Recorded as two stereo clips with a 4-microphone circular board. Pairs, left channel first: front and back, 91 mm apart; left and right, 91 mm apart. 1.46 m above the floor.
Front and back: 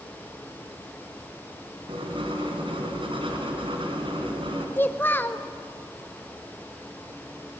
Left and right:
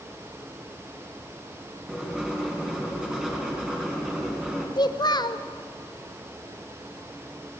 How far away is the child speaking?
About 0.6 m.